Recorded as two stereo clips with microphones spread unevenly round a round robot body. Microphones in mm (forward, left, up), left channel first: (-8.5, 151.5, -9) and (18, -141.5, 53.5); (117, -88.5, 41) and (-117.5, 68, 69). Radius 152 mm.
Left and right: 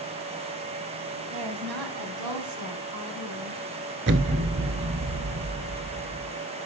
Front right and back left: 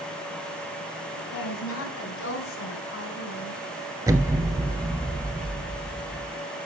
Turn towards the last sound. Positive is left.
turn(degrees=-135)